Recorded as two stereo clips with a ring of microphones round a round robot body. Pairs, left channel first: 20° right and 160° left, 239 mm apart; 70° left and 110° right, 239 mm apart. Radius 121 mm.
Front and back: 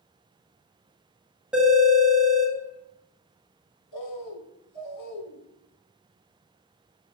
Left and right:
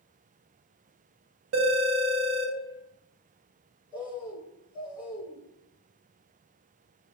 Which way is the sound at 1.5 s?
115° right.